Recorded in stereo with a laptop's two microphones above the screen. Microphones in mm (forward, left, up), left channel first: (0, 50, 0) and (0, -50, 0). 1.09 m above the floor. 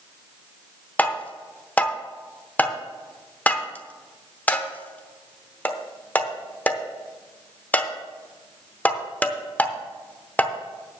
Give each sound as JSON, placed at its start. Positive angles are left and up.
{"t": 1.0, "sound": "tapping", "side_deg": 15, "distance_m": 0.8}